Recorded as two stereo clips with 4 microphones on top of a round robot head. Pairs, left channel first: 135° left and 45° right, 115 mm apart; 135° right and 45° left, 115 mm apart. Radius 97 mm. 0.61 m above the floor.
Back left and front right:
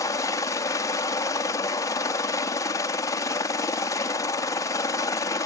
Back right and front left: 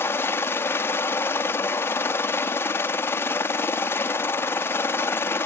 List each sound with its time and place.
0.0 s a helicopter: 170° left